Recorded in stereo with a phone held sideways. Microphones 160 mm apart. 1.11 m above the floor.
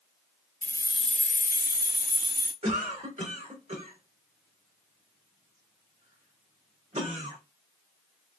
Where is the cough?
50° right (ahead or behind), 2.5 m.